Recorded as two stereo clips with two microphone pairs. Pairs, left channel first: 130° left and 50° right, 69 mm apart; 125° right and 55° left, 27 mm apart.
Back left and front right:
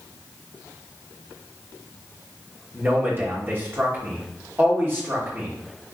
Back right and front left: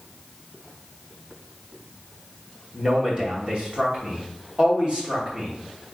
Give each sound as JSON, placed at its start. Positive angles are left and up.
{"t": 2.7, "sound": "a man speaking", "azimuth_deg": 5, "distance_m": 2.5}